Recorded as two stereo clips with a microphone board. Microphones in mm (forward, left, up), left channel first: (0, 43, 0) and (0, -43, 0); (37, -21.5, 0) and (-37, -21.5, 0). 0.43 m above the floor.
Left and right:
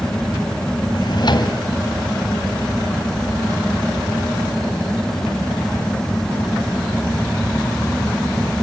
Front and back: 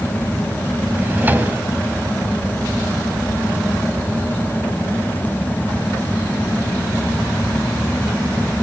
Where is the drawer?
115° left, 1.4 m.